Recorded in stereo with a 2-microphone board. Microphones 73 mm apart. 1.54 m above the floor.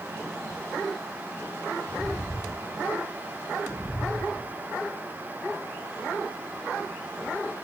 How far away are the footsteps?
About 2.5 m.